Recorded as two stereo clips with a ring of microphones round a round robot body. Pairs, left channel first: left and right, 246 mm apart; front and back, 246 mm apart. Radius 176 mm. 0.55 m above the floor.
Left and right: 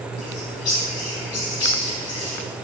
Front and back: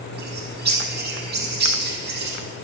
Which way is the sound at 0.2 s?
130° left.